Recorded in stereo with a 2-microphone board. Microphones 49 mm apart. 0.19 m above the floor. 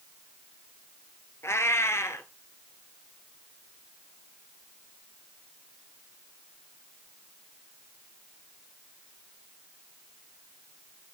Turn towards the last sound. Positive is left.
turn(degrees=70)  # may be behind; listen again after turning